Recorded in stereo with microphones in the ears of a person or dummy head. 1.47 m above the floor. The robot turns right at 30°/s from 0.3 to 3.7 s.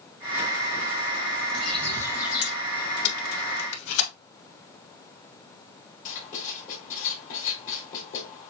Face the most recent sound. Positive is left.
turn(degrees=45)  # may be behind; listen again after turning